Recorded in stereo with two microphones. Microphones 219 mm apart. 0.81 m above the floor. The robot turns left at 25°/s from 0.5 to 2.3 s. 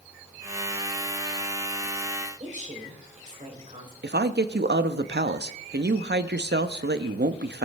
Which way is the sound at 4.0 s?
50° right (ahead or behind).